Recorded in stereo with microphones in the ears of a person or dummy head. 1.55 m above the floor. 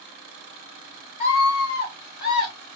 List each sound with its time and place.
1.2 s a scream: 40° left (ahead or behind), 3.5 m; by 2.5 s 25° left (ahead or behind), 3.5 m